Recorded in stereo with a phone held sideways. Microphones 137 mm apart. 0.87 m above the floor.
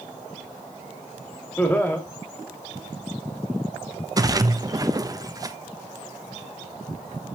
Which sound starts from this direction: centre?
Laughter, at 1.6 s.